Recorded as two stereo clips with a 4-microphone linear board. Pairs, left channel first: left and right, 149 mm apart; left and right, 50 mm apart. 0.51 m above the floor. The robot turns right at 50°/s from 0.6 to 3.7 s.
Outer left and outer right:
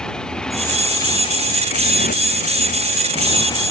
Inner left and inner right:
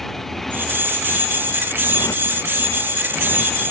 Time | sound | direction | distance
0.0 | a motorcycle | 5° left | ?